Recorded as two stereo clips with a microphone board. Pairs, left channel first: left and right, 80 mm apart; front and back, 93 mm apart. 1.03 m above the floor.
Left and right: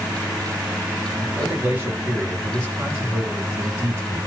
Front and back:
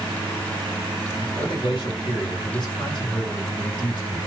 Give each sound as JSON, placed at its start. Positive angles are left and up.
{"t": 1.2, "sound": "a man speaking", "azimuth_deg": -30, "distance_m": 2.5}